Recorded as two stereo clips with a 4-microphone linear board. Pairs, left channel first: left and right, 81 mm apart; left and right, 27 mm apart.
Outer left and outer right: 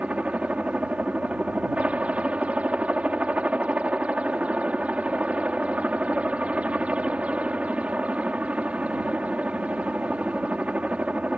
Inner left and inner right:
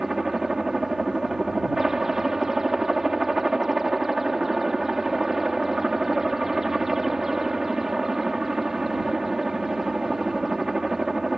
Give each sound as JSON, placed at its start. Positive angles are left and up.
{"t": 0.0, "sound": "a helicopter", "side_deg": -15}